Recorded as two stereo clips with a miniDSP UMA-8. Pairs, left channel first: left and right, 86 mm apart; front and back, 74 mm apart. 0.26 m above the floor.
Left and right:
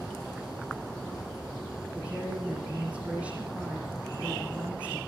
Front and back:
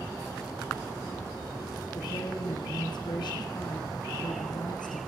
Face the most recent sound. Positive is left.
turn(degrees=-15)